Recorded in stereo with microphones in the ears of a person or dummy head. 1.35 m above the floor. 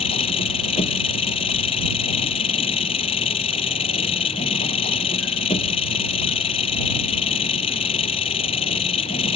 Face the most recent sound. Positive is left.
turn(degrees=35)  # may be behind; listen again after turning